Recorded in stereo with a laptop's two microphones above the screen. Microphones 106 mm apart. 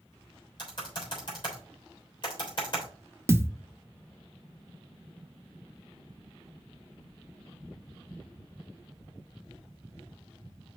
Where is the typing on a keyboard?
45° left (ahead or behind), 3.5 m.